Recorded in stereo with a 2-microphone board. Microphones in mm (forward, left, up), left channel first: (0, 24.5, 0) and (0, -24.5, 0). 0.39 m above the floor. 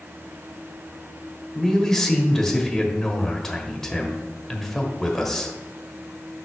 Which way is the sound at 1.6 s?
10° left (ahead or behind).